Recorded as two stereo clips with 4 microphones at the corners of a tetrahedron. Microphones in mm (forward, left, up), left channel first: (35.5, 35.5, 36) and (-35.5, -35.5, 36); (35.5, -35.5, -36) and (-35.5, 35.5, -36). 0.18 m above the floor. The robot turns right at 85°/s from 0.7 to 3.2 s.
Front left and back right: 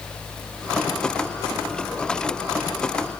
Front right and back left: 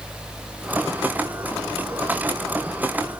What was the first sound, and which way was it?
Only background noise.